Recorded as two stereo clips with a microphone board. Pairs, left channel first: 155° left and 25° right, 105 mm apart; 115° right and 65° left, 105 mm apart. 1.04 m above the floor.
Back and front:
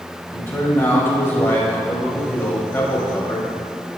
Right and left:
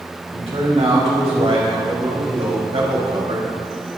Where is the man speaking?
85° left, 4.5 m.